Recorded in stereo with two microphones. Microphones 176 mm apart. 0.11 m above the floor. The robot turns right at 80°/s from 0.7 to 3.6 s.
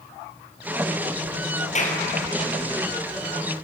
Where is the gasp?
I don't hear a gasp.